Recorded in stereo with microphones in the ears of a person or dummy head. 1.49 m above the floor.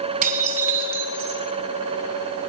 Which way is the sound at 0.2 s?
40° right (ahead or behind).